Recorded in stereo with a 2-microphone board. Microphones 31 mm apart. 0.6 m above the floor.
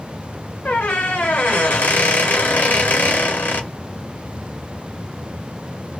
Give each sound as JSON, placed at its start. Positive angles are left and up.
{"t": 0.7, "sound": "a squeak", "side_deg": 75, "distance_m": 1.1}